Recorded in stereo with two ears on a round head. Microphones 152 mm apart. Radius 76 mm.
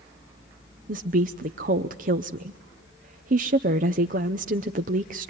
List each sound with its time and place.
0.9 s a woman speaking: 50° right (ahead or behind), 0.6 m